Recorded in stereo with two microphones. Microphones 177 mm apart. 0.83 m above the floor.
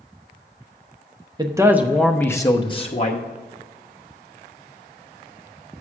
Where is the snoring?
No snoring in this recording.